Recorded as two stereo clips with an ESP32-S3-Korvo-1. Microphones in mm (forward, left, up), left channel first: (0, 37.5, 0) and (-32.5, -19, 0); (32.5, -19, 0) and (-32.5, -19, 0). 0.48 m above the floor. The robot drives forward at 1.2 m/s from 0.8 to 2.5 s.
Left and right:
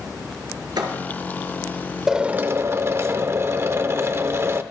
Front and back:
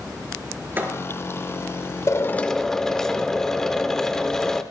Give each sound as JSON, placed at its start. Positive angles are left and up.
{"t": 0.8, "sound": "a thud", "azimuth_deg": -120, "distance_m": 2.5}
{"t": 2.1, "sound": "a drill", "azimuth_deg": -35, "distance_m": 0.8}